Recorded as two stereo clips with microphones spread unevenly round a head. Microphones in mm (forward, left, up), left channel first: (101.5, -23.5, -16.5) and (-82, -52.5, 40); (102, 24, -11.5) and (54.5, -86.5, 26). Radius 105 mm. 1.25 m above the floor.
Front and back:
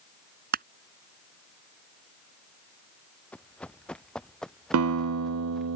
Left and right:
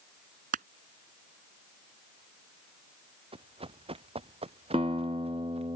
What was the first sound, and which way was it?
Crushing, 135° right.